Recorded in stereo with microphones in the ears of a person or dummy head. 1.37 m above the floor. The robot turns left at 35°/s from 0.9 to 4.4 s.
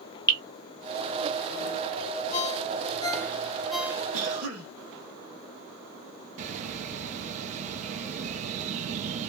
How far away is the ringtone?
About 0.5 m.